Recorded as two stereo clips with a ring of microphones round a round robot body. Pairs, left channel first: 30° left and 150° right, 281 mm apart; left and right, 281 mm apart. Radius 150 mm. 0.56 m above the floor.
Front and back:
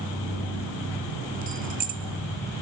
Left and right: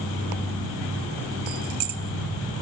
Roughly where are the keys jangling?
Right.